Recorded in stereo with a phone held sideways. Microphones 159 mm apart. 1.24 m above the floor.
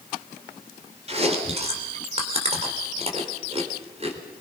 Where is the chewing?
40° right (ahead or behind), 3.5 m.